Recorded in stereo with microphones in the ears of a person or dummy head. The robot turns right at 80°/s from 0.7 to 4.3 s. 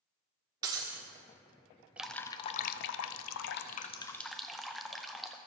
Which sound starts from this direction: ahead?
Dripping, at 2.0 s.